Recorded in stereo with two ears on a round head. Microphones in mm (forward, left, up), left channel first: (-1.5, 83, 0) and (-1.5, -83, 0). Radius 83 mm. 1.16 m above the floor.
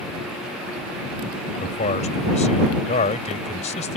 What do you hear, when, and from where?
1.6 s a man speaking: 40° left (ahead or behind)